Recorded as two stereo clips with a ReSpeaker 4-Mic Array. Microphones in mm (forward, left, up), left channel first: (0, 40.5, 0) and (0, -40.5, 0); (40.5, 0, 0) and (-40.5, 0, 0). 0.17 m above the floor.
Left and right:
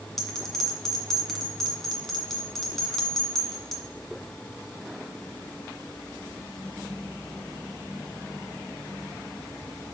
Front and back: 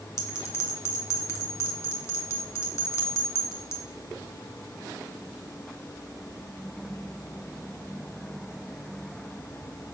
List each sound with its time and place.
0.2 s a bell: 5° left, 1.8 m